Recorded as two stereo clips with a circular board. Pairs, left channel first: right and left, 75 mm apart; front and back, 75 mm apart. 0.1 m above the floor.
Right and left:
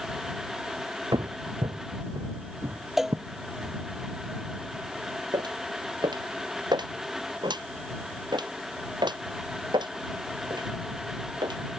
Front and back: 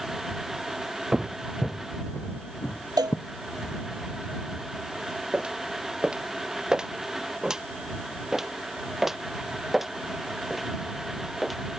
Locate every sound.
1.1 s footsteps: 100° left; by 3.7 s 45° left
3.0 s a cowbell: 175° left
5.3 s footsteps: 105° left; by 11.6 s 90° left